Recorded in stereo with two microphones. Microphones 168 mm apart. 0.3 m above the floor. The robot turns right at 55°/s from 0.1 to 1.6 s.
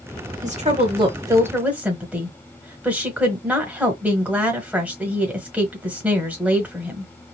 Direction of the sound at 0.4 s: 75° right.